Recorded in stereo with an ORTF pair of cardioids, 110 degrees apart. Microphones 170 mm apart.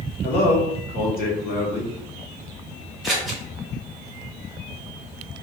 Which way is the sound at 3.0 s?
Straight ahead.